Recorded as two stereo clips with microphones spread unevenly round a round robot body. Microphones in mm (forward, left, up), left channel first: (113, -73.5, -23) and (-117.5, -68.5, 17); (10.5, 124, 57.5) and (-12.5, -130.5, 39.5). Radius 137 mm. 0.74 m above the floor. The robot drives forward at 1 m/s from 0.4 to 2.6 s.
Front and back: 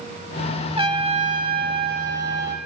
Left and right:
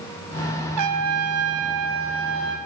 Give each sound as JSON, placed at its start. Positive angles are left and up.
{"t": 0.8, "sound": "a trumpet", "azimuth_deg": -115, "distance_m": 2.5}